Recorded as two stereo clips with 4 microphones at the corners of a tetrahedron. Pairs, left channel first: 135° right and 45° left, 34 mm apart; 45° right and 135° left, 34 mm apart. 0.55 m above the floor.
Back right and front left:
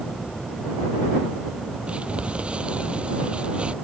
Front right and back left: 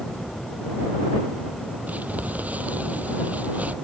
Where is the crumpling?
105° left.